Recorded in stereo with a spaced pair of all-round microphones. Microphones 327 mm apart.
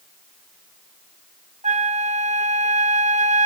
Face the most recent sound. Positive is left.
turn(degrees=-20)  # may be behind; listen again after turning